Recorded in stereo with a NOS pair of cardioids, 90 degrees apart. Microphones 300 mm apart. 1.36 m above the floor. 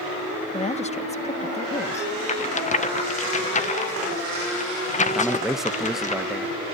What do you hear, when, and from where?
0.5 s a woman speaking: 20° left, 1.4 m
2.3 s a rattle: 25° left, 1.1 m
5.1 s a man speaking: straight ahead, 1.4 m